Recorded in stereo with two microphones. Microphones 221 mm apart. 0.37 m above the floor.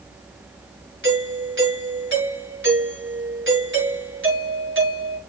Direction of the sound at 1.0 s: 65° right (ahead or behind).